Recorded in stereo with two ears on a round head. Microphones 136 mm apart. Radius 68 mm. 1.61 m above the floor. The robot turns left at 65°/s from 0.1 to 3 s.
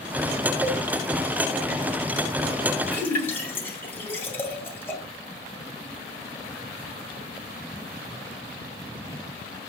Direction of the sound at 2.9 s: 10° left (ahead or behind).